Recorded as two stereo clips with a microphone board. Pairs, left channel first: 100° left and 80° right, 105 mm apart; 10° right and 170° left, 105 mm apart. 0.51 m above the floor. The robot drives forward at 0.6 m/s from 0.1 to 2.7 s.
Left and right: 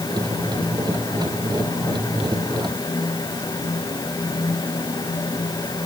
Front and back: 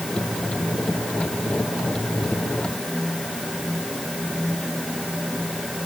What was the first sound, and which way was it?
Only background noise.